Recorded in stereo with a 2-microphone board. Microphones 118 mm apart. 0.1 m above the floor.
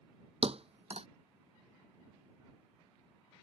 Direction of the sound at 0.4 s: 55° right (ahead or behind).